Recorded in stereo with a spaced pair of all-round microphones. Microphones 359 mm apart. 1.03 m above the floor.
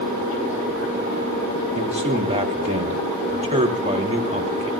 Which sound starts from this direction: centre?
A man speaking, at 1.8 s.